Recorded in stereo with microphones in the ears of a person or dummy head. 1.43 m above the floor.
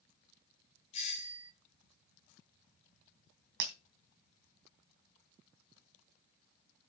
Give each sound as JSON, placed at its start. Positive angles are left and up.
{"t": 0.9, "sound": "a doorbell", "side_deg": 30, "distance_m": 1.2}
{"t": 3.6, "sound": "breaking glass", "side_deg": -60, "distance_m": 2.5}